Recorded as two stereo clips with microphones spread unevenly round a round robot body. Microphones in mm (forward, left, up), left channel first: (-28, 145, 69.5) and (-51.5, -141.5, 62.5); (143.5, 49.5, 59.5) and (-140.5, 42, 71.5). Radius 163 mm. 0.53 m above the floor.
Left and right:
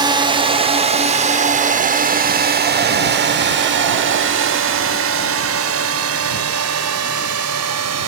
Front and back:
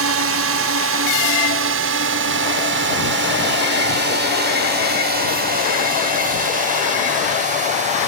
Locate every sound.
0.0 s a drone: 165° right; by 8.1 s 110° right